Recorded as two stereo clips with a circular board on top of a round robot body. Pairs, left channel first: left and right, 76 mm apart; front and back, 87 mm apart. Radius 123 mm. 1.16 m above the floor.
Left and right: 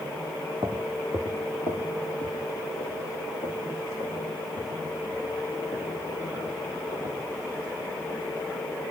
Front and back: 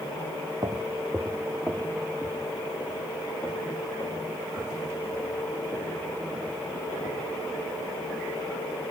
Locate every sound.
0.6 s footsteps: 140° right, 1.2 m; by 7.2 s 70° left, 8 m